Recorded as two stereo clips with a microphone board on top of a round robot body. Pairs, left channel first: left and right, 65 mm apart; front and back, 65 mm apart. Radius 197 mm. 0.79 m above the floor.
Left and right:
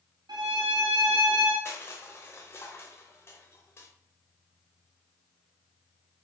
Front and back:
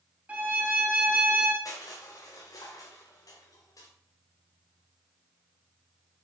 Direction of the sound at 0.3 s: 115° right.